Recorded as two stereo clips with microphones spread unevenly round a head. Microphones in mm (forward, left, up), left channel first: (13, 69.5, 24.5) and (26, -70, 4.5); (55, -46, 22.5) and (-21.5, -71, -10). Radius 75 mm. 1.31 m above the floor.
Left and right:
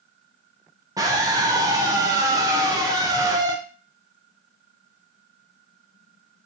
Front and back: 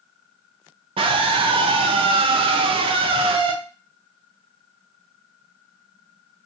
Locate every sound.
1.0 s a scream: 155° right, 0.7 m